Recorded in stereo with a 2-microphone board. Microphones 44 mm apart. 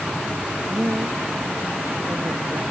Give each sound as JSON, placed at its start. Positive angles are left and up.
{"t": 0.7, "sound": "a woman speaking", "side_deg": -70}